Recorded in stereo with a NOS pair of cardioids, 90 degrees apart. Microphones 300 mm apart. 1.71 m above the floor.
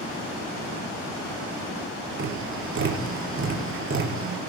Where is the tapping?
45° right, 5 m.